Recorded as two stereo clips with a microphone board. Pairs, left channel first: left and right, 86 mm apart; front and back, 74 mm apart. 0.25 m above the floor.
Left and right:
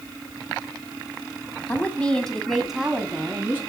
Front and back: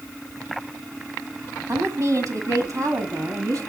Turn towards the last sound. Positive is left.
turn(degrees=-155)